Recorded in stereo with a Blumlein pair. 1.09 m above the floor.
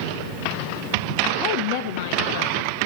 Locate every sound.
1.4 s a woman speaking: 40° left, 0.8 m; by 2.9 s 65° left, 1.7 m